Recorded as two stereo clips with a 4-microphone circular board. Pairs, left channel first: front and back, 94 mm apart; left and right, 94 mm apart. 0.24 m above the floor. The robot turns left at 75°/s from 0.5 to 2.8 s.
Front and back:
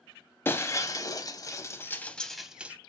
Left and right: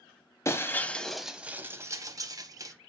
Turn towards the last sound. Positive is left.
turn(degrees=-120)